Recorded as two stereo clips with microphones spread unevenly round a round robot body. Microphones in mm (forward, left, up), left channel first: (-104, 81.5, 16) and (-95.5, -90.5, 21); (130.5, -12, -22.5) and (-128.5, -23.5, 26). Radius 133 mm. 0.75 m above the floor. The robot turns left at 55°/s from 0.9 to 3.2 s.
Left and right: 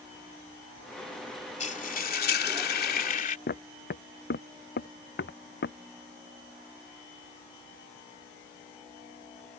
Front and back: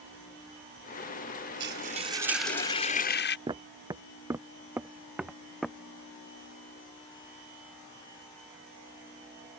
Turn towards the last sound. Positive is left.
turn(degrees=95)